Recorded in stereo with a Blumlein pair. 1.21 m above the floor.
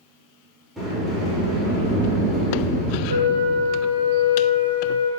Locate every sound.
0.8 s a sliding door: 5° right, 3 m
3.1 s a flute: 70° right, 0.9 m